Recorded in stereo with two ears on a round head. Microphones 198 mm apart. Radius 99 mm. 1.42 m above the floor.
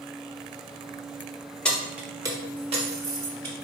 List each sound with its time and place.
1.6 s keys jangling: 5° left (ahead or behind), 0.8 m; by 3.5 s 45° right (ahead or behind), 1.3 m